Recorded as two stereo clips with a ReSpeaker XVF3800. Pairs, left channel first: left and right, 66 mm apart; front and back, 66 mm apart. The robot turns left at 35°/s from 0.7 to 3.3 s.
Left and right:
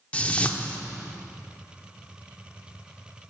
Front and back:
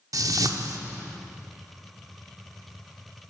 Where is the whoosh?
155° left, 0.5 m.